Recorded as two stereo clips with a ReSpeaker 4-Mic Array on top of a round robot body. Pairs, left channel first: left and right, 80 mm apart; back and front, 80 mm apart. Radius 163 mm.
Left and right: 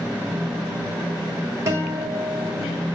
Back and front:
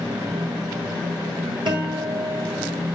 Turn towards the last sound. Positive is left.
turn(degrees=-35)